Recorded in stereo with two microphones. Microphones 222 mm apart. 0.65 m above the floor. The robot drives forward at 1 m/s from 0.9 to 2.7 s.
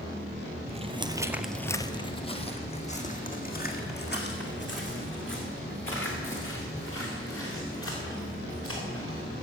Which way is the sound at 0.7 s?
30° right (ahead or behind).